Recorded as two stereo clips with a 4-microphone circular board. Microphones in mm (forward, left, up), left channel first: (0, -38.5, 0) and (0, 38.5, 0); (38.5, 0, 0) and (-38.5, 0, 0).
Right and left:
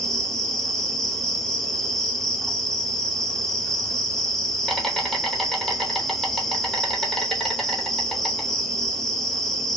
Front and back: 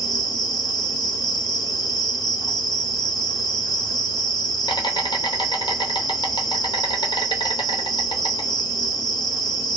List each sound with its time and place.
0.0 s an insect: 5° right, 0.7 m